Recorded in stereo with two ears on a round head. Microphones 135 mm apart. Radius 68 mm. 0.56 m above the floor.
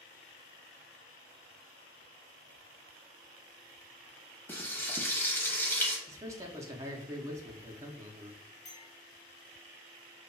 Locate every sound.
4.5 s frying: 15° left (ahead or behind), 0.8 m
6.1 s a man speaking: 20° right (ahead or behind), 0.7 m
8.7 s a clink: 45° left (ahead or behind), 1.8 m